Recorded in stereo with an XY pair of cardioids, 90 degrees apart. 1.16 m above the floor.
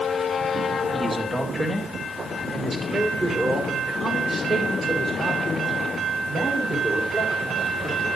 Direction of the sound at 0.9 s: 10° right.